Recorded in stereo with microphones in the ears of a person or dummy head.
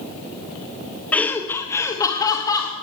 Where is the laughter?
Centre (ahead or behind), 1.4 m; by 2.7 s 10° left (ahead or behind), 3 m.